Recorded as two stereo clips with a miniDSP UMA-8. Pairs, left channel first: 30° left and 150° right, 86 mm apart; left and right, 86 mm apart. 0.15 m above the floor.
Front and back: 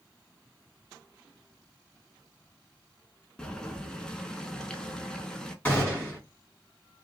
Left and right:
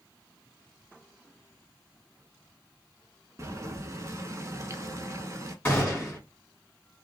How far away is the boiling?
About 0.6 m.